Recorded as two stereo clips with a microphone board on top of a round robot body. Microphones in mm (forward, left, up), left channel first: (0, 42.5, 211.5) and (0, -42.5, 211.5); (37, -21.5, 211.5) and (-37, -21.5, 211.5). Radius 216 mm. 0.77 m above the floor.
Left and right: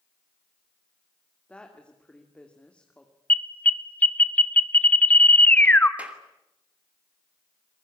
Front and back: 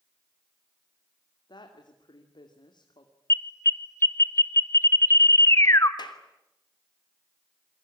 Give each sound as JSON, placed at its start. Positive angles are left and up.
{"t": 1.5, "sound": "a woman speaking", "azimuth_deg": 10, "distance_m": 2.5}
{"t": 3.3, "sound": "an alarm", "azimuth_deg": 25, "distance_m": 1.8}
{"t": 6.0, "sound": "a clap", "azimuth_deg": -15, "distance_m": 3.0}